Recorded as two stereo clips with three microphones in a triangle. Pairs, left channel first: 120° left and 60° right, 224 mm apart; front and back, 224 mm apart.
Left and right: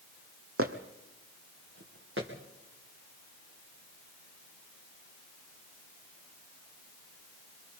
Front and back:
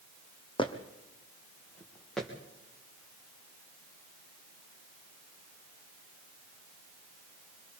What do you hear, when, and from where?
0.6 s footsteps: 65° right, 1.6 m; by 2.3 s 90° right, 4 m